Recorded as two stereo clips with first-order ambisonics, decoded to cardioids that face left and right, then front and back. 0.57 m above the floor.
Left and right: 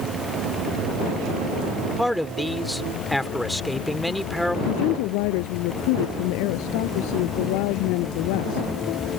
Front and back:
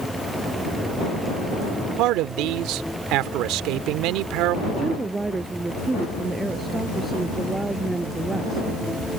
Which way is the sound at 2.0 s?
Straight behind.